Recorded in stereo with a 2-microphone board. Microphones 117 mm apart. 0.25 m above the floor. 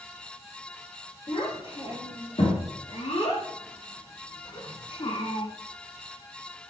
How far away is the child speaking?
About 4 m.